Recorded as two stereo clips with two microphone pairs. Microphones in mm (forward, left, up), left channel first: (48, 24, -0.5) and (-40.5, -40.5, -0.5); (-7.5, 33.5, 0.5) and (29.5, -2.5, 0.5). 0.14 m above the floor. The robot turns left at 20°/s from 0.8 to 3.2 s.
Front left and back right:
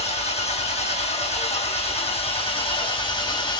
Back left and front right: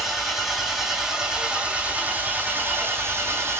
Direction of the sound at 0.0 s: 45° left.